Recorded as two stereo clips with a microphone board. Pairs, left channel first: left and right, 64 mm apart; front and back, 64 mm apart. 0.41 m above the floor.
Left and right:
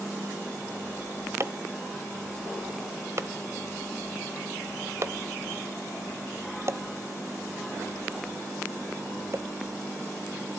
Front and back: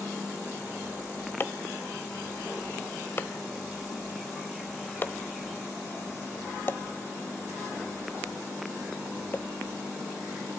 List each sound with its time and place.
1.4 s chopping: 50° right, 1.0 m